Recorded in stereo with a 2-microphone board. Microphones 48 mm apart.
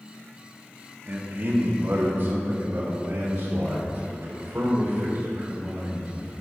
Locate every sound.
1.1 s a man speaking: 40° right (ahead or behind), 1.1 m; by 6.3 s 45° right (ahead or behind), 4.5 m